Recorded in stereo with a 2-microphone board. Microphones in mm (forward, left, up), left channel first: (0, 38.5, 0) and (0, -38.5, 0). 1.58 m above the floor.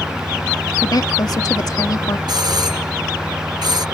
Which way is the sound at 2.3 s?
65° right (ahead or behind).